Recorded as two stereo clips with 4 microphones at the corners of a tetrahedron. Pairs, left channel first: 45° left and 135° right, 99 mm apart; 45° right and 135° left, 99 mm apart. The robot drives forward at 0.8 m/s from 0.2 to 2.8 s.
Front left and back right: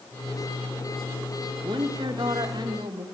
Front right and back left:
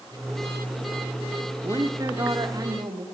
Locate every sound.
1.6 s a woman speaking: 170° right, 1.8 m; by 3.0 s 175° right, 2.5 m